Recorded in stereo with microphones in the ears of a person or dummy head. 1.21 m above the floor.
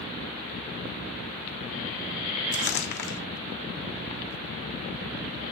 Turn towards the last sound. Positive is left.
turn(degrees=60)  # may be behind; listen again after turning